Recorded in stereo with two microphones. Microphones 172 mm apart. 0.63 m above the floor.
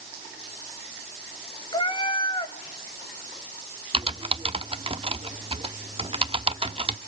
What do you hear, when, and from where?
1.7 s a cat meowing: 25° left (ahead or behind), 0.7 m
3.9 s typing on a keyboard: 35° right (ahead or behind), 0.8 m